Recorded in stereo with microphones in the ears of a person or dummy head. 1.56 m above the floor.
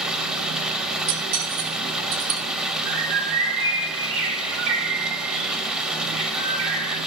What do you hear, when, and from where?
0.0 s running water: centre (ahead or behind), 0.7 m
1.1 s cutlery clinking: 65° right (ahead or behind), 2 m
2.9 s a bird: 75° right (ahead or behind), 3 m